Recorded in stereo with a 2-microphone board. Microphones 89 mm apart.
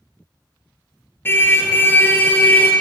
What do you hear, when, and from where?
1.2 s a car horn: 25° left (ahead or behind), 4 m; by 2.7 s 20° left (ahead or behind), 5 m